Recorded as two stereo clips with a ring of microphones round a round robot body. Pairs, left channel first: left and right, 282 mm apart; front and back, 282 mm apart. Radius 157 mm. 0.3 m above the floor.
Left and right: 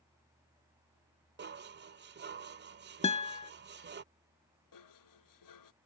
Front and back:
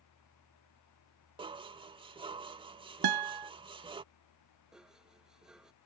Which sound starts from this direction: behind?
A guitar, at 3.0 s.